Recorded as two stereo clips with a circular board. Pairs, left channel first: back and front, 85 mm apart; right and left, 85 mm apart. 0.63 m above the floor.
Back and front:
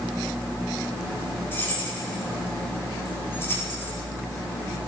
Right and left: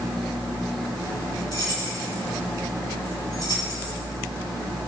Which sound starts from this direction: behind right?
Keys jangling, at 1.5 s.